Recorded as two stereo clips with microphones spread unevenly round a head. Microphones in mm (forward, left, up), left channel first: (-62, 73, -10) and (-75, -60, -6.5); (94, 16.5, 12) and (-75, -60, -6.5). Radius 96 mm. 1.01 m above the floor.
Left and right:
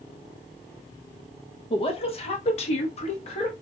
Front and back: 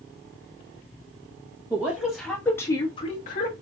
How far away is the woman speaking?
About 1.1 m.